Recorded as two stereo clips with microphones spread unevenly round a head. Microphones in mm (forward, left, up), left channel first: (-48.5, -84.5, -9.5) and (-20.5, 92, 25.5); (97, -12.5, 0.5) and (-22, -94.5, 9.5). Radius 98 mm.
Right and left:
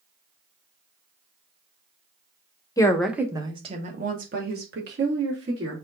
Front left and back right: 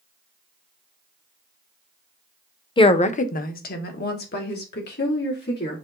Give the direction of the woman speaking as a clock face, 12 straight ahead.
1 o'clock.